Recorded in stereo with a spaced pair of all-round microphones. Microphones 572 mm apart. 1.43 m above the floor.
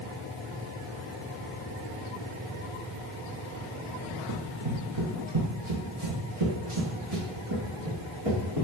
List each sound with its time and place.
4.3 s running footsteps: 45° right (ahead or behind), 1.9 m; by 8.7 s 70° right (ahead or behind), 4 m